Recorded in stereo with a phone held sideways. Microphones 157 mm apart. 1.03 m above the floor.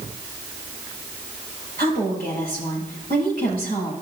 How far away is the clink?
No clink in this recording.